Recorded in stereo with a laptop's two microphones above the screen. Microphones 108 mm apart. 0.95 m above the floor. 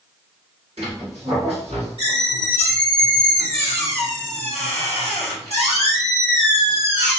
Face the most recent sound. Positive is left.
turn(degrees=-70)  # may be behind; listen again after turning